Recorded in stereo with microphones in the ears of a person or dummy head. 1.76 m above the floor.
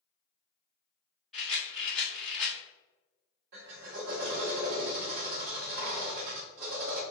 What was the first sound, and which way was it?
A rattle, 5° left (ahead or behind).